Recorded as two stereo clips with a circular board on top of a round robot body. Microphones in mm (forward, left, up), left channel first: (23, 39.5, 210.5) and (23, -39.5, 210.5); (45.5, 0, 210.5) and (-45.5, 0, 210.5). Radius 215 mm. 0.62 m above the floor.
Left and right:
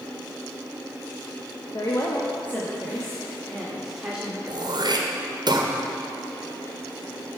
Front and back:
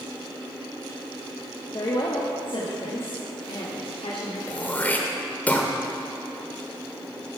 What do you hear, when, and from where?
1.7 s a woman speaking: 45° left, 1.1 m; by 4.4 s 10° right, 2 m
4.5 s throat clearing: 70° right, 1.3 m